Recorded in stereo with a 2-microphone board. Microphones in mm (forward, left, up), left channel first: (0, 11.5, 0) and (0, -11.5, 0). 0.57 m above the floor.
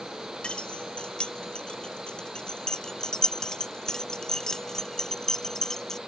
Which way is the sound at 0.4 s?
60° left (ahead or behind).